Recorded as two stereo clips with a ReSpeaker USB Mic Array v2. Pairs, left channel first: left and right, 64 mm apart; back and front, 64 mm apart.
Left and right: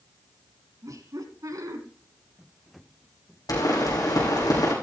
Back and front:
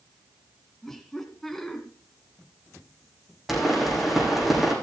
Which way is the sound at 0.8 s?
95° right.